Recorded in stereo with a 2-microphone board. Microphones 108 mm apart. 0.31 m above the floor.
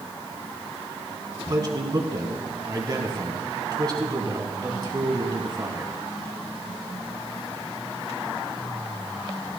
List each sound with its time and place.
1.5 s a man speaking: 40° right (ahead or behind), 2 m